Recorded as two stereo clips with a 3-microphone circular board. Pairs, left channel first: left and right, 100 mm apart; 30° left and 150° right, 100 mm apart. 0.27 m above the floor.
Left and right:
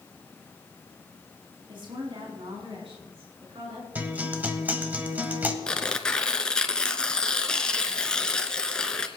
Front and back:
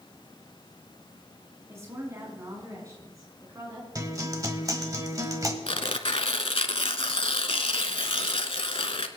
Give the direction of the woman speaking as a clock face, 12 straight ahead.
3 o'clock.